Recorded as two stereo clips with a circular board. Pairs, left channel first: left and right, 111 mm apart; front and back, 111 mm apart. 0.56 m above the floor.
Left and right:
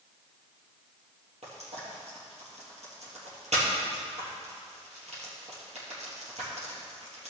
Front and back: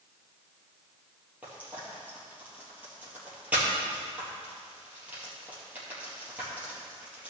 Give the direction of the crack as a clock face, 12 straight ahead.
I don't hear a crack.